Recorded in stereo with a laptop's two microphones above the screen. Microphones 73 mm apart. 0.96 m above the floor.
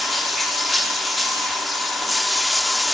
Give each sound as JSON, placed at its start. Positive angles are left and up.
{"t": 0.0, "sound": "running water", "side_deg": 0, "distance_m": 1.1}